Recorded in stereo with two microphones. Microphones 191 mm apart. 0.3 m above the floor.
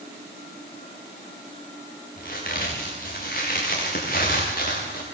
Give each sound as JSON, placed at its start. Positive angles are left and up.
{"t": 2.2, "sound": "a crack", "side_deg": 50, "distance_m": 9.0}